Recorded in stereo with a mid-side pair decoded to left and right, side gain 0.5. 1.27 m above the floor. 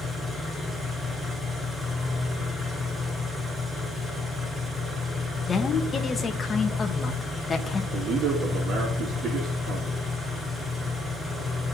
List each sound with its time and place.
0.0 s an engine running: straight ahead, 4.5 m
5.5 s a woman speaking: 35° left, 1.0 m
7.9 s a man speaking: 60° right, 2 m